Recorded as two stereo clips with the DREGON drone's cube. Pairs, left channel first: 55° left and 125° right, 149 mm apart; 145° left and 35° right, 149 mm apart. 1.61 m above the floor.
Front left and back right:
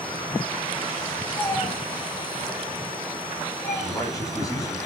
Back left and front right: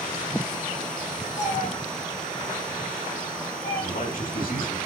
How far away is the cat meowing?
About 6.5 m.